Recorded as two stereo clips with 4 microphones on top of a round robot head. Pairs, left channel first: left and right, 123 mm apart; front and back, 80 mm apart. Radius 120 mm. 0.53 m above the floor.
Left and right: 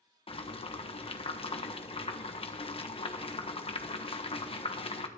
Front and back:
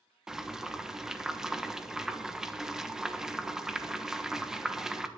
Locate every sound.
0.3 s boiling: 100° left, 1.2 m